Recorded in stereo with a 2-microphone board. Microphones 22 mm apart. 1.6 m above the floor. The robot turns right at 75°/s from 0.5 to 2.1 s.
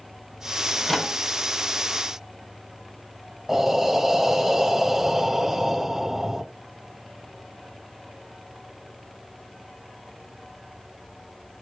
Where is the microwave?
30° left (ahead or behind), 1.4 m; by 1.1 s centre (ahead or behind), 1.4 m.